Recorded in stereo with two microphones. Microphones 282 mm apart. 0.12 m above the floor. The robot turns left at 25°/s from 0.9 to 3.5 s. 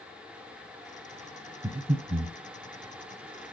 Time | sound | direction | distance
1.6 | breathing | 20° right (ahead or behind) | 1.1 m